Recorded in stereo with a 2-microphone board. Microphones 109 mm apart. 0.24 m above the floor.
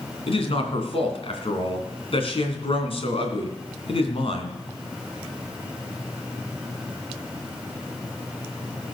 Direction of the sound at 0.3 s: 60° left (ahead or behind).